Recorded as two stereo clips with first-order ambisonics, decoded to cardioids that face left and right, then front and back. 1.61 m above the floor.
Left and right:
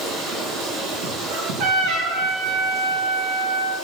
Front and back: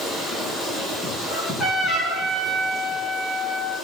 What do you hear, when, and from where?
0.0 s running water: 70° right, 8 m
1.3 s a trumpet: 70° right, 6.5 m